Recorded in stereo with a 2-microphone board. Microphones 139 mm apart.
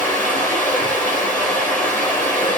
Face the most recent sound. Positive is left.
turn(degrees=10)  # may be behind; listen again after turning